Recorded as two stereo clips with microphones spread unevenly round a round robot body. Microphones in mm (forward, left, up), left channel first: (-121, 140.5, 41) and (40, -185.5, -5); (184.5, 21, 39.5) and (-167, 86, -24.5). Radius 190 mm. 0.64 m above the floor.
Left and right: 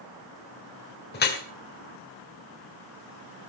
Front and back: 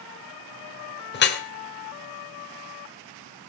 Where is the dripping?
50° left, 2.5 m.